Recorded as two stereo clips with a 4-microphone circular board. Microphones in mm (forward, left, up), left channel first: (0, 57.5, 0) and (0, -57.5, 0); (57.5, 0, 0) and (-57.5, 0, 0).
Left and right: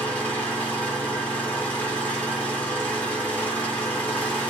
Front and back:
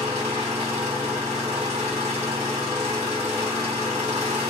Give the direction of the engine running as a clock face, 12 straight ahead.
6 o'clock.